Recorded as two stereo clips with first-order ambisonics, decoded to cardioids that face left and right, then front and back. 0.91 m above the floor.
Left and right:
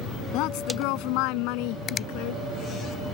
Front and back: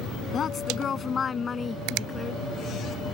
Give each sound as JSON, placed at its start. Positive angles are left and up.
{"t": 0.3, "sound": "a woman speaking", "azimuth_deg": 65}
{"t": 1.9, "sound": "a finger snap", "azimuth_deg": 155}